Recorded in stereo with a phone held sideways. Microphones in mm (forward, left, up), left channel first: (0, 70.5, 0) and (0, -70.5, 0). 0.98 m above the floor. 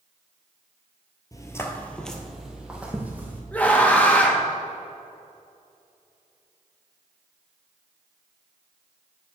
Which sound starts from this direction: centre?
A scream, at 3.5 s.